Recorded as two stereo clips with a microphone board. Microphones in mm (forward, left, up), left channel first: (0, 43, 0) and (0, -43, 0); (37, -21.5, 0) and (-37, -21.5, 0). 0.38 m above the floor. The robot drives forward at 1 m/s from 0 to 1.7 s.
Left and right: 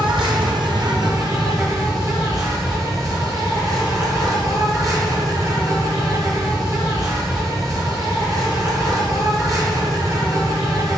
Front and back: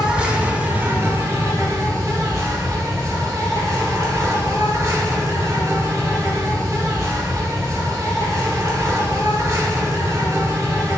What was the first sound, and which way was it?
An insect, 100° right.